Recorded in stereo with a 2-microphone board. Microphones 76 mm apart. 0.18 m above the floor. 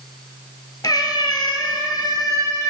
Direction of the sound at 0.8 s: 65° left (ahead or behind).